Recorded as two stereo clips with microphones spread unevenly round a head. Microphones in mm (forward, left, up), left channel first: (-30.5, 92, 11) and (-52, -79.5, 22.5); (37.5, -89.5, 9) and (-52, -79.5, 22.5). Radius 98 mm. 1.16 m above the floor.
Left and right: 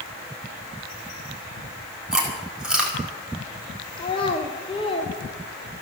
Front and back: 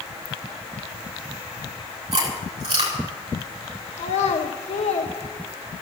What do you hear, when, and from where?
2.1 s chewing: 175° left, 5.5 m
4.0 s a child speaking: 15° left, 1.1 m